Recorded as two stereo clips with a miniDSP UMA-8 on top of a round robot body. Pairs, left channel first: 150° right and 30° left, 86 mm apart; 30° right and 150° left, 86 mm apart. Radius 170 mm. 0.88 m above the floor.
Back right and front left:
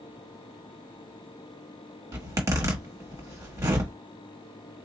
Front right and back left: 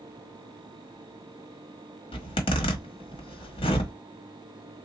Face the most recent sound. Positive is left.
turn(degrees=-30)